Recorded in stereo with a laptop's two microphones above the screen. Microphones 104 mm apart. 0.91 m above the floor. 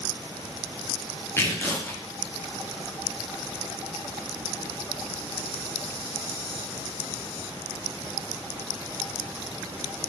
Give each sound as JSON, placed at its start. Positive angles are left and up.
{"t": 1.4, "sound": "tearing paper", "side_deg": 25, "distance_m": 0.6}